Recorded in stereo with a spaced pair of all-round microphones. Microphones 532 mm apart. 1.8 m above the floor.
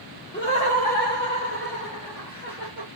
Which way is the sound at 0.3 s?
20° left (ahead or behind).